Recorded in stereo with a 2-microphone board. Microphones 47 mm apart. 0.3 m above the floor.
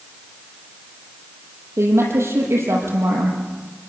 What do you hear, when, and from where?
1.8 s a woman speaking: 70° right (ahead or behind), 8 m